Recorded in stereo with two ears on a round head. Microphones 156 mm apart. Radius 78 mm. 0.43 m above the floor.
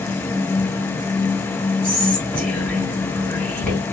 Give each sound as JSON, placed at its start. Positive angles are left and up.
{"t": 1.8, "sound": "whispering", "side_deg": 10, "distance_m": 2.0}